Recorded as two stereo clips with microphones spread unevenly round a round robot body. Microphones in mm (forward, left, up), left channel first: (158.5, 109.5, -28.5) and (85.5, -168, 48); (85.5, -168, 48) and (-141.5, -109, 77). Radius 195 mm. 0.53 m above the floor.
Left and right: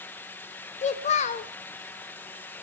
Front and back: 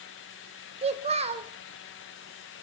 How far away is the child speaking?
About 0.5 m.